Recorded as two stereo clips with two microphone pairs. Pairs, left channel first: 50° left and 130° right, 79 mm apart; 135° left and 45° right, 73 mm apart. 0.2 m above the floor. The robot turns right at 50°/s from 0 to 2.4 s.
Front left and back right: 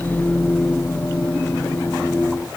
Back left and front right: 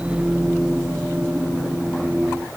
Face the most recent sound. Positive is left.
No sound to turn to.